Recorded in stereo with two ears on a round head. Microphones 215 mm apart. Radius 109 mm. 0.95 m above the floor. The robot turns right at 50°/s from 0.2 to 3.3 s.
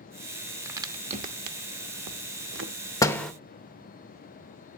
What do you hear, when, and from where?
0.7 s a crack: 10° right (ahead or behind), 0.8 m; by 2.7 s 50° right (ahead or behind), 0.8 m
3.0 s a door slam: 15° left (ahead or behind), 0.8 m; by 3.3 s centre (ahead or behind), 0.8 m